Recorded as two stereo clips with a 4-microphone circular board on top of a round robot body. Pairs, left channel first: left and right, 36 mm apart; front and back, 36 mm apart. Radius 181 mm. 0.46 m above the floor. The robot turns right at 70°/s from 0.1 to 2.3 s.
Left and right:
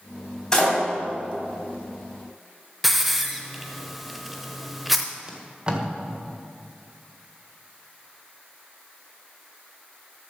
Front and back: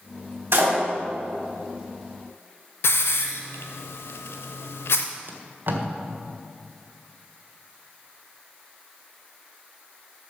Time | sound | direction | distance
0.5 | a door slam | 165° left | 3 m
2.8 | a hiss | straight ahead | 0.5 m
5.3 | tape being pulled | 155° right | 1.8 m